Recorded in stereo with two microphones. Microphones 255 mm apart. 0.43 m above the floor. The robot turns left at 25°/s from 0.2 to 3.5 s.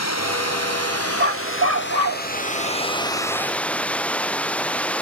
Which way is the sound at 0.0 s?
90° left.